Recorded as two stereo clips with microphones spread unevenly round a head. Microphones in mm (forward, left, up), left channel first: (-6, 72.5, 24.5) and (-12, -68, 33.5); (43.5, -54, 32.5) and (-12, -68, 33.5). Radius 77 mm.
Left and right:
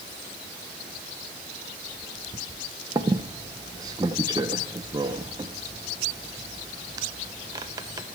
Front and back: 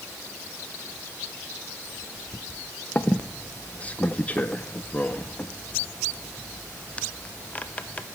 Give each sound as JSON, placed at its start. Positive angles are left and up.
{"t": 3.0, "sound": "a squeak", "azimuth_deg": -40, "distance_m": 0.7}